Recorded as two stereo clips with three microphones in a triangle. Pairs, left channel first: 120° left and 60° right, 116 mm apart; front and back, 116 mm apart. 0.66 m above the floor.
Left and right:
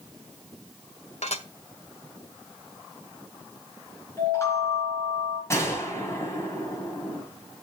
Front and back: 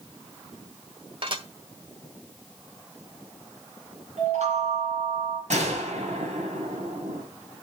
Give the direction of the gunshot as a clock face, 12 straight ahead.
6 o'clock.